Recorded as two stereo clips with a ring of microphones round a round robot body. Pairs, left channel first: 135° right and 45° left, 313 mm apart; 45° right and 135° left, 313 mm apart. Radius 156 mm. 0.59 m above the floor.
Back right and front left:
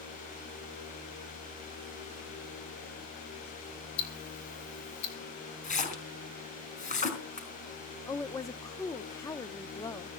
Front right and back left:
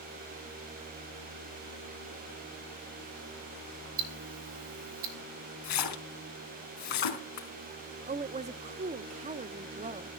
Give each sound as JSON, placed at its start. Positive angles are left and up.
{"t": 4.0, "sound": "ticking", "azimuth_deg": 180, "distance_m": 3.5}
{"t": 5.6, "sound": "a splash", "azimuth_deg": -65, "distance_m": 4.0}
{"t": 8.1, "sound": "a woman speaking", "azimuth_deg": 160, "distance_m": 0.6}